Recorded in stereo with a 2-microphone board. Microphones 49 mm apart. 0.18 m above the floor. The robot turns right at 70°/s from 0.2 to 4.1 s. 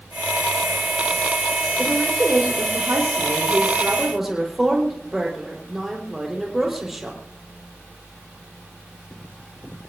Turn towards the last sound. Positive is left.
turn(degrees=-5)